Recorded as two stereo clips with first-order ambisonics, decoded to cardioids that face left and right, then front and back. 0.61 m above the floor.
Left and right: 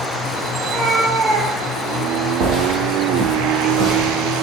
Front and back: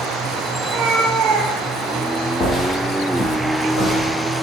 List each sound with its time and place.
0.6 s a cat meowing: 175° right, 0.8 m; by 2.1 s 95° right, 0.7 m
2.4 s footsteps: 60° right, 1.0 m; by 4.1 s 45° right, 2 m